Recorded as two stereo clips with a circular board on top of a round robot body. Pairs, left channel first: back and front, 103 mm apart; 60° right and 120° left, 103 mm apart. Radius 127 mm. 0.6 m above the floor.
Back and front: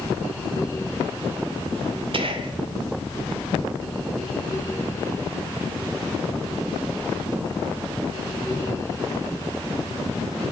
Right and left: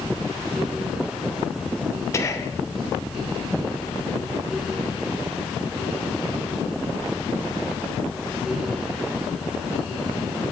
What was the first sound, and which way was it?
Whispering, 5° right.